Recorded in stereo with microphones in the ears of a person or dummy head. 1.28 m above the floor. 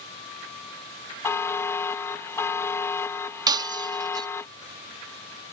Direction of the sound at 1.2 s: 15° left (ahead or behind).